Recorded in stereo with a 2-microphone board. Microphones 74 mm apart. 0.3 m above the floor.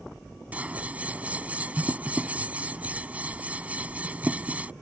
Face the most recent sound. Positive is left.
turn(degrees=-20)  # may be behind; listen again after turning